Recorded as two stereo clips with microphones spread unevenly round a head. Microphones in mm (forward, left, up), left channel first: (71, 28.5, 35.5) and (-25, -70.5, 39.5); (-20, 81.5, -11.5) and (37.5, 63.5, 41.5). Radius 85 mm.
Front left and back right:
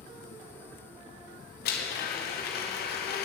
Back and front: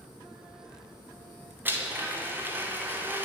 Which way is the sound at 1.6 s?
40° left.